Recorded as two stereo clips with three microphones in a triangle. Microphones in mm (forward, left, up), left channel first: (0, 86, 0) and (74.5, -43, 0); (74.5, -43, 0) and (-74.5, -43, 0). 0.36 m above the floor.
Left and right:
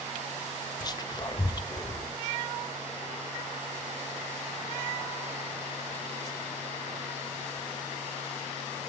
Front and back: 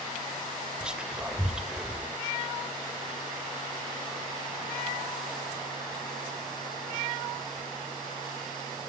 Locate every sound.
0.8 s whispering: 100° left, 1.5 m